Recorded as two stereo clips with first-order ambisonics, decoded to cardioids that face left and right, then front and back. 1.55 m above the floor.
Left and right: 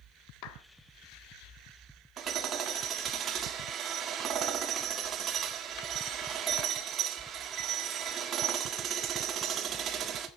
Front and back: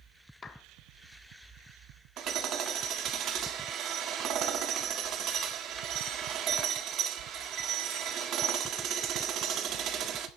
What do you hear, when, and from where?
0.4 s a clap: 70° left, 1.3 m
2.2 s hammering: 140° right, 1.5 m